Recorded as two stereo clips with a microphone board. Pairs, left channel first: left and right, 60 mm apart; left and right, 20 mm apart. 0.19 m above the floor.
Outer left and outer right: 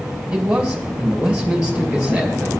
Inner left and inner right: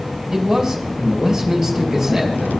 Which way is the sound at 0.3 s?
15° right (ahead or behind).